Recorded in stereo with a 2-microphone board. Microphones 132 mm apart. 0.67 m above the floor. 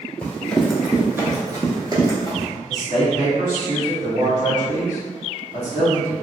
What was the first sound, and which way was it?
Running footsteps, 15° left (ahead or behind).